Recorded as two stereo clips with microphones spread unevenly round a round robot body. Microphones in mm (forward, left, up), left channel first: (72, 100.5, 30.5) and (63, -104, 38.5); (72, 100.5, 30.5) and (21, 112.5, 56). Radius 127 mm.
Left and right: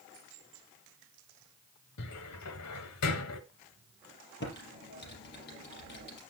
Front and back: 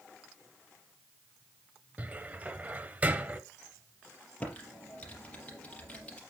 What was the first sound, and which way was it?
A cupboard door, 110° left.